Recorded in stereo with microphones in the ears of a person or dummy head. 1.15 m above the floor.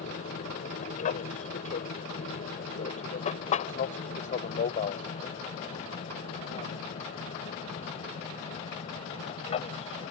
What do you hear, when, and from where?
0.0 s an aircraft: 45° left (ahead or behind); by 10.1 s 35° left (ahead or behind)